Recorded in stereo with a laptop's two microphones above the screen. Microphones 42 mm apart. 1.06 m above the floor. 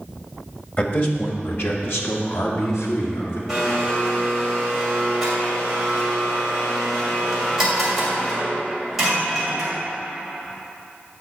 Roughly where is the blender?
Centre.